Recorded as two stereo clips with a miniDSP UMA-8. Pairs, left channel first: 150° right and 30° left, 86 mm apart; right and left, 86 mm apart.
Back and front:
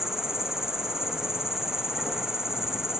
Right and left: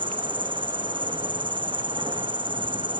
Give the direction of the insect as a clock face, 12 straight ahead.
8 o'clock.